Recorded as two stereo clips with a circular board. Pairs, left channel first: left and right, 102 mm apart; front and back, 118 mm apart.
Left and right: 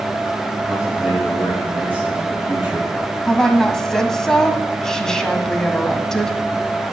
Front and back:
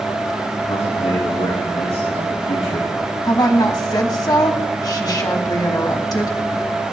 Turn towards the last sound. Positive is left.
turn(degrees=10)